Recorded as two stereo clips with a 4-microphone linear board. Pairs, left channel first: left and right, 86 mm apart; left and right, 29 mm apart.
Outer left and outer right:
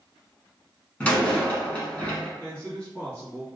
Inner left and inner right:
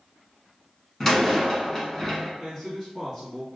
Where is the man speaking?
15° left (ahead or behind), 1.5 m.